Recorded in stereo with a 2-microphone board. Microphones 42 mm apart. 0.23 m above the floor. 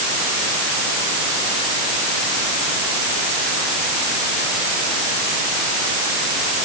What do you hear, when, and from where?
Only background noise.